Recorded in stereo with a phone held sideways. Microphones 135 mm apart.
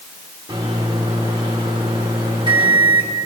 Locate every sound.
0.5 s a microwave: 35° right (ahead or behind), 2.5 m